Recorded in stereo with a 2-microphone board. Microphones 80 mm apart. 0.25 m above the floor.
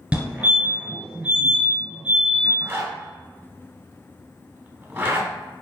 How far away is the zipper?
About 0.7 m.